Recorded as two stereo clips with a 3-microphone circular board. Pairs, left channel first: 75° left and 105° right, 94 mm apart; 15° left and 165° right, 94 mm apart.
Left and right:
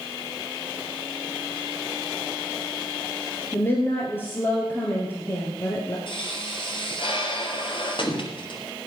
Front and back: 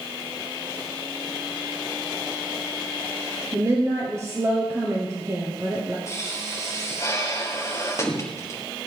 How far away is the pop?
About 2.5 m.